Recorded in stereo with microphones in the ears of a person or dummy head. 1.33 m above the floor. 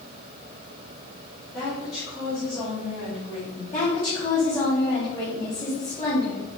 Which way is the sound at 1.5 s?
5° left (ahead or behind).